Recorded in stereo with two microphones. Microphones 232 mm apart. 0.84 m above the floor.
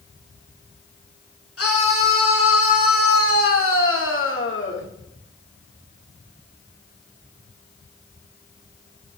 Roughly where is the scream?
Left.